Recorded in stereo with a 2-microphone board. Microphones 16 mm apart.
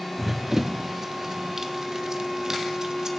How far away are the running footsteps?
About 1.2 m.